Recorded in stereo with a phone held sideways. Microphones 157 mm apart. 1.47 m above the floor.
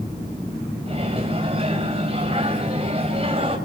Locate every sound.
0.9 s a microwave: 40° right (ahead or behind), 6 m